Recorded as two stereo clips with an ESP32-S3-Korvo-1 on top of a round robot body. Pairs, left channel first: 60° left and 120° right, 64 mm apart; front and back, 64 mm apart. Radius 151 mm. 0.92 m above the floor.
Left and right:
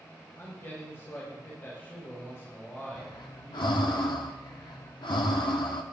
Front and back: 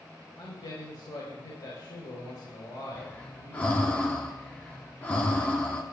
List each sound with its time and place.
0.4 s a man speaking: 5° left, 4 m
3.0 s breathing: 70° left, 1.0 m